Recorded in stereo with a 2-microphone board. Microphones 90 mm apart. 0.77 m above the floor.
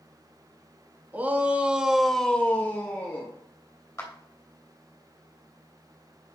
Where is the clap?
30° left (ahead or behind), 3 m.